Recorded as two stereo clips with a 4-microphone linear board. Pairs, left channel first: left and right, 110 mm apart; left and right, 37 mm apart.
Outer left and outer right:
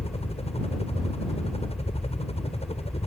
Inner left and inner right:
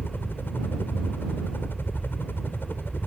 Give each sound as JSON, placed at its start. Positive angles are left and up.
{"t": 0.0, "sound": "a helicopter", "side_deg": 70}